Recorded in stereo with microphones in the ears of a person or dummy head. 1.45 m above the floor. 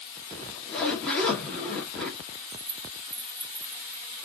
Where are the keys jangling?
5° left (ahead or behind), 1.7 m.